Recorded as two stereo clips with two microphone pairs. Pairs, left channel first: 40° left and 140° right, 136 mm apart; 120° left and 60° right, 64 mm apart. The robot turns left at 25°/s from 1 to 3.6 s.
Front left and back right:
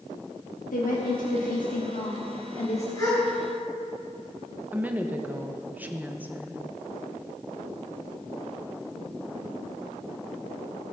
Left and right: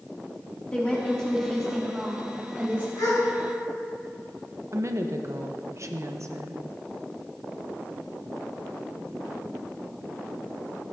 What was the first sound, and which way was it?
A woman speaking, 45° left.